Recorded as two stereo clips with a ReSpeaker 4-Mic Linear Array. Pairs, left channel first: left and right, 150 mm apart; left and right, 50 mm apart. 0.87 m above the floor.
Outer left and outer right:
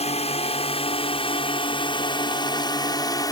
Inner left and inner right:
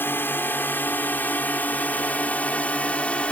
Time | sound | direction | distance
0.0 | a drone | 40° left (ahead or behind) | ?